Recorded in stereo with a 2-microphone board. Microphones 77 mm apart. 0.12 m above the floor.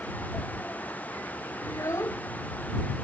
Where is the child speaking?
45° left (ahead or behind).